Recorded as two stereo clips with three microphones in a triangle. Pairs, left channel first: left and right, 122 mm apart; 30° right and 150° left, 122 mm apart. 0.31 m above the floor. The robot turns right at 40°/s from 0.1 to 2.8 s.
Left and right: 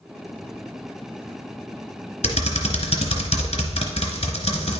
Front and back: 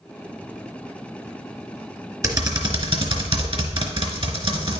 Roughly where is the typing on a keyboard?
Left.